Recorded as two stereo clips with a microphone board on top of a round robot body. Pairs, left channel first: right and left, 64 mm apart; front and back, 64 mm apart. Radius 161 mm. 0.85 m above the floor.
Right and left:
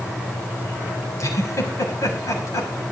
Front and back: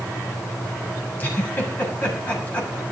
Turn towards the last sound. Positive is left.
turn(degrees=-60)